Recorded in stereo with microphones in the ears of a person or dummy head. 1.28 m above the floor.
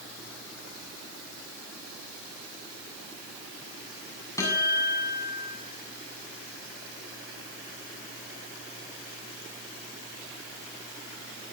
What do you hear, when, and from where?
4.4 s a guitar: 20° left (ahead or behind), 8 m